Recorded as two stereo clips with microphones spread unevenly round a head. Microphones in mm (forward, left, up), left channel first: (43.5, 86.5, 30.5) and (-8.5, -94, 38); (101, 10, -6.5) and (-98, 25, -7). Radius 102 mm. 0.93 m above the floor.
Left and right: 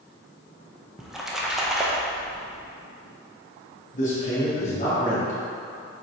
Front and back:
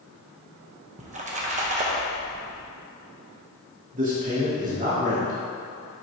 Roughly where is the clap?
I don't hear a clap.